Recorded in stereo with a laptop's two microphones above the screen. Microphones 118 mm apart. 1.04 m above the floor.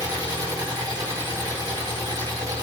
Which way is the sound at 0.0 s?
35° right (ahead or behind).